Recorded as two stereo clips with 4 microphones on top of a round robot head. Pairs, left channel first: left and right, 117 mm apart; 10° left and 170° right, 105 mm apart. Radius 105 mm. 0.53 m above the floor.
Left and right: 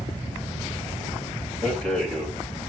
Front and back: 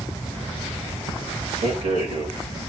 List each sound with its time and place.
1.6 s a rattle: straight behind, 4.5 m